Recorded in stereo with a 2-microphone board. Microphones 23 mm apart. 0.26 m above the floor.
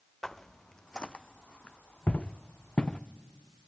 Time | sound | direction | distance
0.2 | footsteps | 20° left (ahead or behind) | 0.9 m